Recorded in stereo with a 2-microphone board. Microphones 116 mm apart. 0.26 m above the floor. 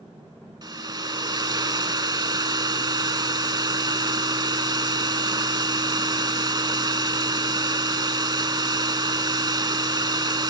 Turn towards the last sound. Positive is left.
turn(degrees=-40)  # may be behind; listen again after turning